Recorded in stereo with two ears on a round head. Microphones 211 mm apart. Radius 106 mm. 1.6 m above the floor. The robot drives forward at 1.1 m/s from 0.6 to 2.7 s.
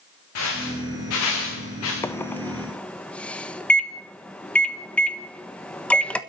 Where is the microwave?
10° left (ahead or behind), 0.6 m; by 6.2 s 5° left (ahead or behind), 1.2 m.